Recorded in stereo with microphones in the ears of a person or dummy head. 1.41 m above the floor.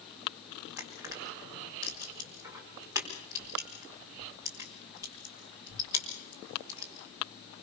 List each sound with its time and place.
0.8 s crushing: 15° right (ahead or behind), 4.5 m